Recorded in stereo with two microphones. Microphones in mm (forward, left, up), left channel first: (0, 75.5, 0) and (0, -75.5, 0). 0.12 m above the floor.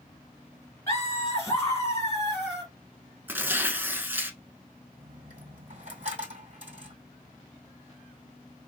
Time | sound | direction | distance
0.9 | laughter | 20° left (ahead or behind) | 1.5 m
3.3 | tearing paper | 15° right (ahead or behind) | 0.7 m
5.0 | a dropped coin | 45° right (ahead or behind) | 1.6 m